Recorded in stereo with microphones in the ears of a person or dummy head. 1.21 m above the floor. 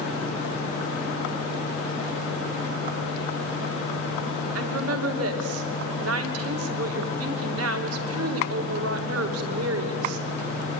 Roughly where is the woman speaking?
Right.